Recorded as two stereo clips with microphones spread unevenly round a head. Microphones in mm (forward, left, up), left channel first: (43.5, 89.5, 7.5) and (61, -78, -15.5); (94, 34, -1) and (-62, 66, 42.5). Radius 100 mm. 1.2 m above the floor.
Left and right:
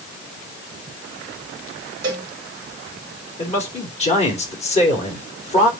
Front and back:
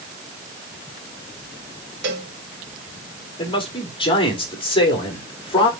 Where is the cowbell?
155° right, 2.0 m.